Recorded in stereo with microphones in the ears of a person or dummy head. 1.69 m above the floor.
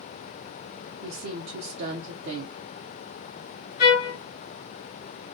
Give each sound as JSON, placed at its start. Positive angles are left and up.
{"t": 1.0, "sound": "a woman speaking", "side_deg": -60, "distance_m": 0.5}
{"t": 3.8, "sound": "a trumpet", "side_deg": 30, "distance_m": 1.2}